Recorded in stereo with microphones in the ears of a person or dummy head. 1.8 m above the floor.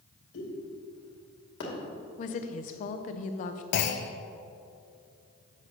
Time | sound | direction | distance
0.3 | a pop | 65° left (ahead or behind) | 2.5 m
2.2 | a woman speaking | 40° left (ahead or behind) | 0.6 m
3.7 | a clunk | 55° left (ahead or behind) | 0.5 m